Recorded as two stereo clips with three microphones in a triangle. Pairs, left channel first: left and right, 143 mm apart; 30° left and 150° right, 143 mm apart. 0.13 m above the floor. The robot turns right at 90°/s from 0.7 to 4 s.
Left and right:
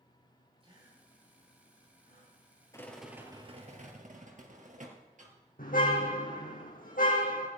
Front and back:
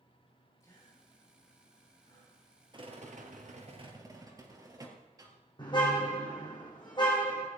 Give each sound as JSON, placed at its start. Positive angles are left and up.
{"t": 0.6, "sound": "a gasp", "azimuth_deg": -40, "distance_m": 9.0}
{"t": 2.7, "sound": "a rattle", "azimuth_deg": 155, "distance_m": 3.0}
{"t": 5.6, "sound": "a car horn", "azimuth_deg": 85, "distance_m": 3.5}